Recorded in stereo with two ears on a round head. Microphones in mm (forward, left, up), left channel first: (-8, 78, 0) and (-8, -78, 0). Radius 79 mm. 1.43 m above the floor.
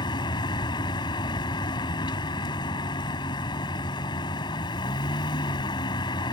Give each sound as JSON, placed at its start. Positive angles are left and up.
{"t": 0.0, "sound": "a vehicle", "side_deg": 25}